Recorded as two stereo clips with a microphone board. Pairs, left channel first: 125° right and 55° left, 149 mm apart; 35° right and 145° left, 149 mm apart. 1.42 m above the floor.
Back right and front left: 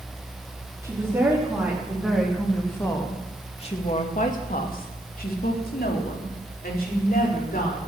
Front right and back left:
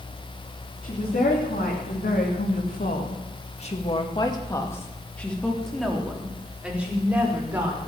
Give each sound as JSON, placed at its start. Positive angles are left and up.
{"t": 0.8, "sound": "a woman speaking", "azimuth_deg": -15, "distance_m": 3.5}